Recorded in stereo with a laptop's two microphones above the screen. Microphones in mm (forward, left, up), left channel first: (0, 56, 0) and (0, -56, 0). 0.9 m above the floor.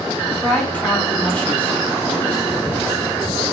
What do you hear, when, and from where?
0.4 s a woman speaking: 10° left (ahead or behind), 1.6 m